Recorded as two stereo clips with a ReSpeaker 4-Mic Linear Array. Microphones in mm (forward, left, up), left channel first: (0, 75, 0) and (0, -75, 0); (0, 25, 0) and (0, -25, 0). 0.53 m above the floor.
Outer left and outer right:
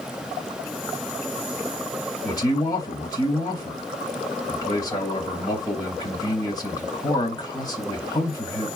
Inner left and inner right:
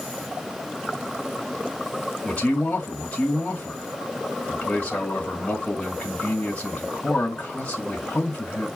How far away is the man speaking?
About 3 m.